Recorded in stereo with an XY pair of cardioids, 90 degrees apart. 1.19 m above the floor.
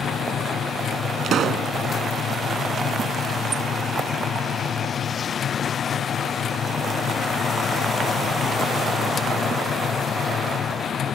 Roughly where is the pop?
Ahead right.